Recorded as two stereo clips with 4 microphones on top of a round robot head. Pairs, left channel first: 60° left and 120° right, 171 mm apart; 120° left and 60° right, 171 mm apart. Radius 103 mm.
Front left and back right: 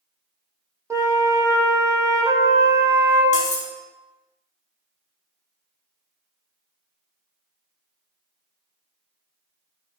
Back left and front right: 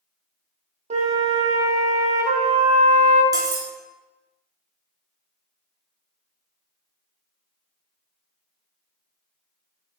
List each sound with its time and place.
0.9 s a flute: 60° right, 0.7 m
3.3 s cutlery clinking: 10° left, 0.7 m